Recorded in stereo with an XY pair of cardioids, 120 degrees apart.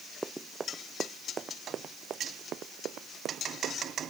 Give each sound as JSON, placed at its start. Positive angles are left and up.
{"t": 0.2, "sound": "running footsteps", "azimuth_deg": -15}